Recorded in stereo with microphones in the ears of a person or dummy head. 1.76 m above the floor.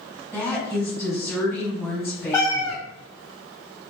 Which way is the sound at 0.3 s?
10° left (ahead or behind).